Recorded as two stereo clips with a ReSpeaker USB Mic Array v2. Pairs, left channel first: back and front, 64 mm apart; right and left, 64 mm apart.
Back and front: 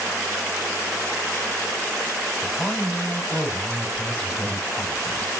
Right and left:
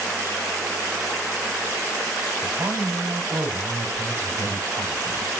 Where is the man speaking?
105° left, 3.5 m.